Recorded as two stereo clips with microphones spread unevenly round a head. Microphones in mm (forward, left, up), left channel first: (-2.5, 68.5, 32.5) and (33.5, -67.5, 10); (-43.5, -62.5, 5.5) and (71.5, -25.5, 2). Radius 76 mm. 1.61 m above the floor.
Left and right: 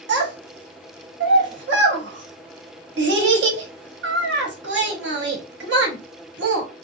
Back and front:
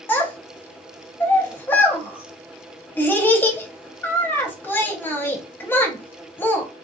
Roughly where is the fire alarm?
I don't hear a fire alarm.